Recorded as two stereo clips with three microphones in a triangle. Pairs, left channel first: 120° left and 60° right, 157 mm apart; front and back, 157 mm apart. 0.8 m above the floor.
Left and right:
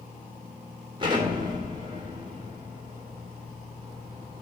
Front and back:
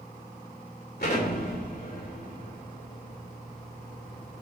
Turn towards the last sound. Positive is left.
turn(degrees=0)